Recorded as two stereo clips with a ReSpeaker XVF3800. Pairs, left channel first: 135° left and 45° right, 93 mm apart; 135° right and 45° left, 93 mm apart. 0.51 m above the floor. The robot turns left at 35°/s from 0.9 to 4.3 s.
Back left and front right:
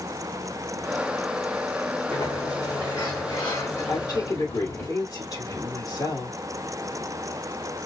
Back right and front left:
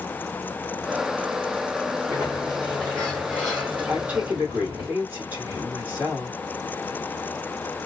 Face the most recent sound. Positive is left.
turn(degrees=105)